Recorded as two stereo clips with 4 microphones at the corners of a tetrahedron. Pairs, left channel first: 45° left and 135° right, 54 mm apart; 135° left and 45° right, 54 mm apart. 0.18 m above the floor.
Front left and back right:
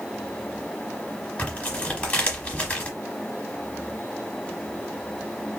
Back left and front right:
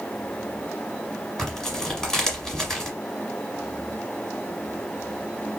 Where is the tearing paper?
80° left, 1.1 m.